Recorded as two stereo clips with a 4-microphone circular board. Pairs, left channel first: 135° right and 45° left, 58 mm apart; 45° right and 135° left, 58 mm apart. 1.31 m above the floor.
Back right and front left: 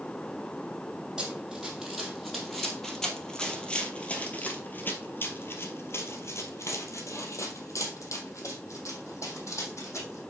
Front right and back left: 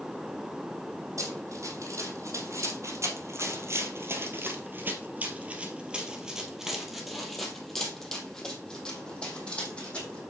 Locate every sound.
1.2 s running footsteps: 125° left, 3 m; by 10.2 s 110° right, 4 m